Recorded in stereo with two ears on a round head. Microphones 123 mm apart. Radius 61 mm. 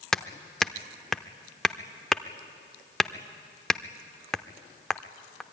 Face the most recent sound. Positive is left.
turn(degrees=5)  # may be behind; listen again after turning